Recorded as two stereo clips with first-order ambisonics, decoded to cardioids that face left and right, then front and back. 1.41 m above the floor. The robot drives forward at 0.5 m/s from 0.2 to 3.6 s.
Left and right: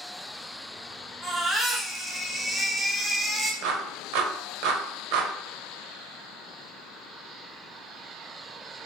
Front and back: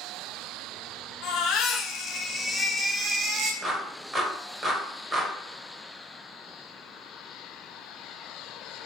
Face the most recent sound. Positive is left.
turn(degrees=-110)